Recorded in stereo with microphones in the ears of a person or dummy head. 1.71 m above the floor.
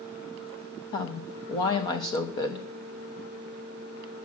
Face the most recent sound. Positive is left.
turn(degrees=25)  # may be behind; listen again after turning